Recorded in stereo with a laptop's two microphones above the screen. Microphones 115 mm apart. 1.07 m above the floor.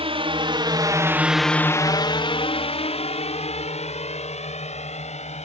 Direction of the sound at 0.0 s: 60° right (ahead or behind).